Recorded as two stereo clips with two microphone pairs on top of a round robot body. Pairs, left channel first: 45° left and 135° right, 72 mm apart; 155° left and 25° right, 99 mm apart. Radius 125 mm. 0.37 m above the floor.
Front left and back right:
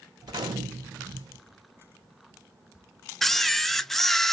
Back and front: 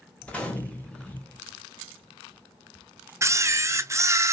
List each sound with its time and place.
0.2 s a gunshot: 125° right, 1.3 m
3.2 s a camera shutter: 40° right, 0.6 m